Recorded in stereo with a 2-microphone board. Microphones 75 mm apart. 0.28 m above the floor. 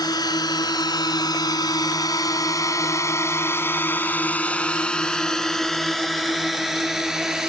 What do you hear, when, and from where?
0.0 s a drone: 65° left (ahead or behind); by 7.5 s 10° right (ahead or behind)